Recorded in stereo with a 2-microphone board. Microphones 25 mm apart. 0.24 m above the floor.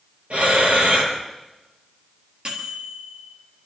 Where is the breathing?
60° right (ahead or behind), 5.5 m.